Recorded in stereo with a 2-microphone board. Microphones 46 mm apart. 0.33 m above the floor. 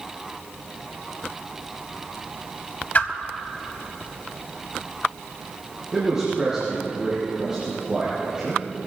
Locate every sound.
3.0 s a whoosh: 45° left (ahead or behind), 0.9 m
5.9 s a man speaking: 15° right (ahead or behind), 4.5 m